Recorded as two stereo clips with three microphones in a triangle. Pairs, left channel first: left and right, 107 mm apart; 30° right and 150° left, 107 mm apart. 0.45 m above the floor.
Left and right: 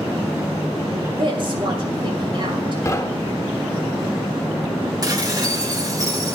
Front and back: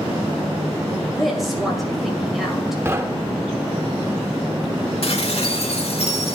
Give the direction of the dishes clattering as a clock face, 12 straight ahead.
1 o'clock.